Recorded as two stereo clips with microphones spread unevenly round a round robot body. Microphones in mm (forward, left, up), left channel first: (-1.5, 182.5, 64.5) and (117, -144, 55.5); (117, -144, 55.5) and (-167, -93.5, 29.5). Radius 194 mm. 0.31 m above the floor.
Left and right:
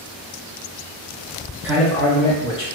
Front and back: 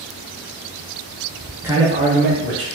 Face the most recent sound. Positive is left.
turn(degrees=180)